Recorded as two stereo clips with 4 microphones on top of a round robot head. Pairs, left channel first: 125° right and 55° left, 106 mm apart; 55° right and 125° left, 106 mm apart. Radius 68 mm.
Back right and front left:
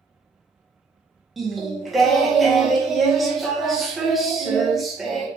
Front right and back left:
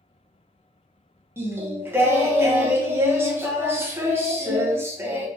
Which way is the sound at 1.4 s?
145° left.